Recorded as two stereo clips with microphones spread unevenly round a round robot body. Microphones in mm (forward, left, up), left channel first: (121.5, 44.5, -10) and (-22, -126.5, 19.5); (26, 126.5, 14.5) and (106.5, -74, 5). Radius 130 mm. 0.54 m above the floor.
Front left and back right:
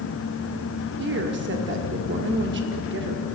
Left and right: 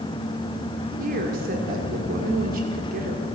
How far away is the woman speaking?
About 1.5 m.